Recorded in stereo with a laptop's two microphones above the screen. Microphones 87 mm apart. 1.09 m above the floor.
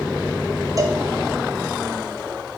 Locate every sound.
0.8 s a cowbell: 40° right (ahead or behind), 2 m